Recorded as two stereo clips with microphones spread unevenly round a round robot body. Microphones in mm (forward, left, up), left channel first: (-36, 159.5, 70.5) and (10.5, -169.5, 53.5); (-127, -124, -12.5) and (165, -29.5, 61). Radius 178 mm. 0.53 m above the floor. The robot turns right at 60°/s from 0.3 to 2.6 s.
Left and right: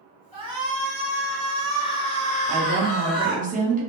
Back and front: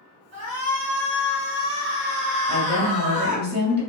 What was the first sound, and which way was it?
A shout, 55° right.